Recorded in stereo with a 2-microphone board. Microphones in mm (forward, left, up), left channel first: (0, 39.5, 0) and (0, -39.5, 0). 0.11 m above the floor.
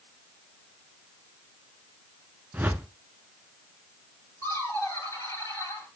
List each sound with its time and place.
2.5 s a whoosh: 20° right (ahead or behind), 0.6 m
4.4 s laughter: 40° left (ahead or behind), 3 m